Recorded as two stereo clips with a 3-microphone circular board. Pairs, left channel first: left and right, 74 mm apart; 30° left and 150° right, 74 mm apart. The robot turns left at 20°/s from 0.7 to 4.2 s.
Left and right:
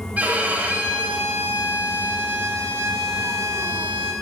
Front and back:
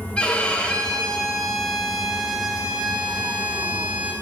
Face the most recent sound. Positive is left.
turn(degrees=-105)